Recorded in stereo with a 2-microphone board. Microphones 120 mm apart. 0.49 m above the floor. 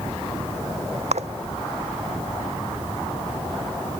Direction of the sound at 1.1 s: 70° right (ahead or behind).